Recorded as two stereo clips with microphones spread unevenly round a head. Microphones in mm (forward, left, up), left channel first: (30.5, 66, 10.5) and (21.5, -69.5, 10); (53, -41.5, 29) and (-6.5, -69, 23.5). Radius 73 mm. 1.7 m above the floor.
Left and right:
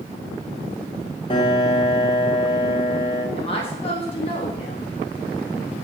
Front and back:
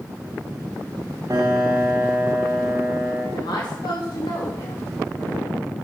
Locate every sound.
1.3 s a piano: 145° left, 1.0 m
3.4 s a woman speaking: 40° left, 1.2 m